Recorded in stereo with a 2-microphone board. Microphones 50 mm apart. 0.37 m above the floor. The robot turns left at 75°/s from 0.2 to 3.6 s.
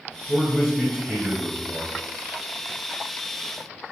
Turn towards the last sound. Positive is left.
turn(degrees=150)